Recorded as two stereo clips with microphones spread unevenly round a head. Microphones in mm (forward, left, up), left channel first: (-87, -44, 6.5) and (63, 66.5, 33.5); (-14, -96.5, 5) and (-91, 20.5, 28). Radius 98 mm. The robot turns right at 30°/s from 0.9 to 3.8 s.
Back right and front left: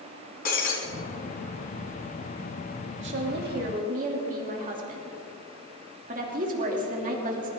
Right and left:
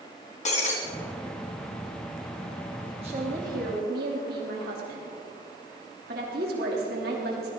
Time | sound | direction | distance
0.5 | breaking glass | 95° right | 3.5 m
3.0 | a woman speaking | 60° left | 3 m